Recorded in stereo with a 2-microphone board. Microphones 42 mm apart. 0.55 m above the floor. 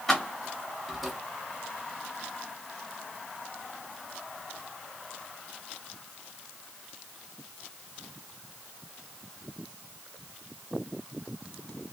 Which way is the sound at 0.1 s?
10° left (ahead or behind).